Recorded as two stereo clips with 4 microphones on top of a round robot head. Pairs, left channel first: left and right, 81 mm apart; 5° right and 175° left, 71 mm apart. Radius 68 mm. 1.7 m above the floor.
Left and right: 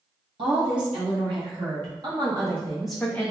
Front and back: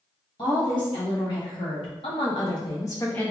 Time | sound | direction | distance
0.4 | a woman speaking | 45° right | 1.6 m